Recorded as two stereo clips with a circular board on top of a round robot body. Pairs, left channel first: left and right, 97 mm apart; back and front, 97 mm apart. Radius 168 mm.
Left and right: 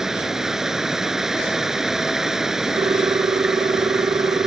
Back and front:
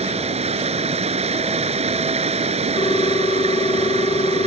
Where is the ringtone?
135° right.